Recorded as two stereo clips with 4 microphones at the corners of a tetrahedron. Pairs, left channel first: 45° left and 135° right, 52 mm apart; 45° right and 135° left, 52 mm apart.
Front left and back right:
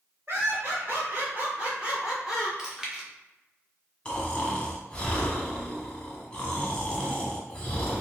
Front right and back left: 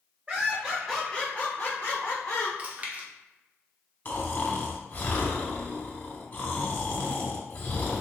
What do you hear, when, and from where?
0.3 s laughter: 165° right, 1.5 m; by 2.5 s 45° right, 2 m
2.6 s chewing: 155° left, 0.9 m
4.0 s snoring: 20° right, 0.8 m